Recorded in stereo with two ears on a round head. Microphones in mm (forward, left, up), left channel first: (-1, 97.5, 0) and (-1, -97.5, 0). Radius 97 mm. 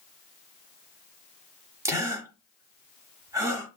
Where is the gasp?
15° right (ahead or behind), 0.9 m.